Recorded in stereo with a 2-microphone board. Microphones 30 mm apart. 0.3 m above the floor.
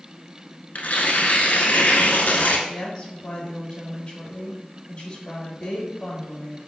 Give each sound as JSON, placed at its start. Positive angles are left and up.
{"t": 0.8, "sound": "tearing paper", "side_deg": 85, "distance_m": 0.7}
{"t": 2.7, "sound": "a woman speaking", "side_deg": 40, "distance_m": 1.5}